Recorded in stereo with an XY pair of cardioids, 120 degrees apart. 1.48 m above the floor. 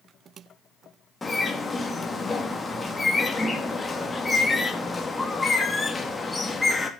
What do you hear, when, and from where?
1.2 s a bird: 20° left, 2.5 m